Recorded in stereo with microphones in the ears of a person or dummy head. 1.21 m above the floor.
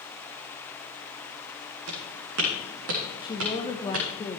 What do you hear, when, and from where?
1.9 s footsteps: 70° right (ahead or behind), 4 m
3.2 s a woman speaking: 25° left (ahead or behind), 0.9 m